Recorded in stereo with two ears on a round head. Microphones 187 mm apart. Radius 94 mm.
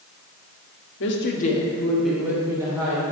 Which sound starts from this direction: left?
A woman speaking, at 1.0 s.